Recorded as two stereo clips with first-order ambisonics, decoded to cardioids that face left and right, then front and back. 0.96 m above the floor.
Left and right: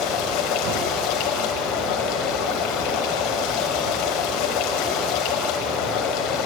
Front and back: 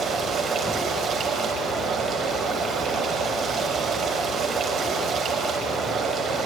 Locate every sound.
0.0 s running water: 115° left, 3 m